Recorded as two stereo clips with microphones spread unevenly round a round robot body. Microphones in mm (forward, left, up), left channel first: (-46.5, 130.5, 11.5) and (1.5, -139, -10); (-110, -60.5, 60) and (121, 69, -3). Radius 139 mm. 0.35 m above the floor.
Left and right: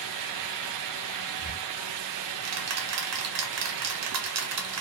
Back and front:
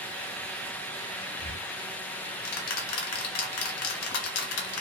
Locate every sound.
1.4 s ticking: 110° right, 0.8 m